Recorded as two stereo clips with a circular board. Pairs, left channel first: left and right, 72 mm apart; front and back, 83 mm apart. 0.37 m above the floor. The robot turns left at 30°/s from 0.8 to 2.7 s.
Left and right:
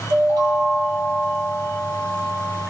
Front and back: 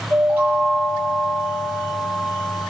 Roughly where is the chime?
Behind right.